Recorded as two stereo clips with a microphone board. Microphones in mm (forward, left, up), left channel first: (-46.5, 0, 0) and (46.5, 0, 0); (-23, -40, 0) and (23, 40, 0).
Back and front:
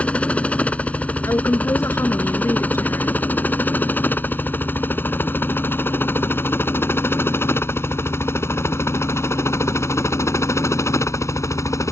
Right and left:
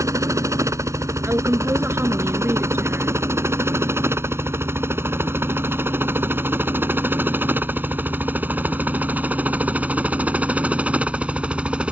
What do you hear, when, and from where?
0.0 s a helicopter: 110° left; by 11.9 s 135° left
1.2 s a woman speaking: 125° left